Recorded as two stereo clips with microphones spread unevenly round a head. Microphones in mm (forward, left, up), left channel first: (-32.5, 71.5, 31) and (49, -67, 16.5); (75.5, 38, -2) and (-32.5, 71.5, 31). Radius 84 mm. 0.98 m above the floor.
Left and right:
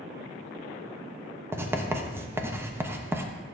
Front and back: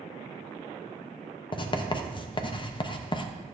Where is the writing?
15° left, 0.9 m.